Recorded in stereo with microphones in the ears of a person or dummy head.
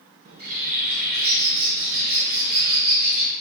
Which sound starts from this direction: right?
A bird, at 0.2 s.